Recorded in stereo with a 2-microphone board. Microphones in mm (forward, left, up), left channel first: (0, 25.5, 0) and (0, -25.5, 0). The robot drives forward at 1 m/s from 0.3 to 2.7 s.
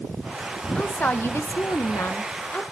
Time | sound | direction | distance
0.8 | a woman speaking | 30° left (ahead or behind) | 1.1 m